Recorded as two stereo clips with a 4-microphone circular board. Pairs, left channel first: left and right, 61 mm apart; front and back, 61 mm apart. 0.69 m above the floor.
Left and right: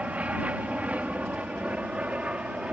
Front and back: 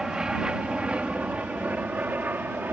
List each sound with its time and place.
0.0 s an aircraft: 120° right; by 2.7 s 150° right